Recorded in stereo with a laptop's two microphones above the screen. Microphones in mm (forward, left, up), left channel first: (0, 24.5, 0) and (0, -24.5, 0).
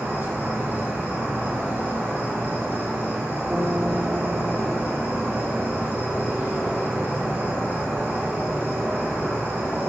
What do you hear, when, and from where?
0.0 s an insect: 55° right (ahead or behind), 3.5 m
3.5 s a guitar: 35° right (ahead or behind), 1.6 m